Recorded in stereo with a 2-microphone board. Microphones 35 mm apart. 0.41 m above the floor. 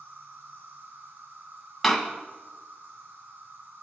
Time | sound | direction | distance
0.0 | an insect | 70° right (ahead or behind) | 3 m
1.8 | a door slam | 5° left (ahead or behind) | 1.7 m